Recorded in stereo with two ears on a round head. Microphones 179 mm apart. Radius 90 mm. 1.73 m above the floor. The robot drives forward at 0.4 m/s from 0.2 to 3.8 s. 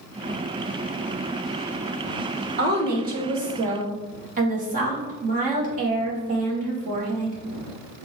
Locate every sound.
2.6 s a woman speaking: 50° right (ahead or behind), 1.7 m; by 7.4 s 40° right (ahead or behind), 2 m